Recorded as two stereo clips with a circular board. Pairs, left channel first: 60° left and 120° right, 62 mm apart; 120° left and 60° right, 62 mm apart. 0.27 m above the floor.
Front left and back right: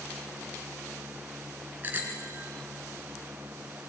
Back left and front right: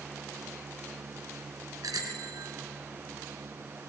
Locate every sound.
1.8 s a bicycle bell: 60° right, 2 m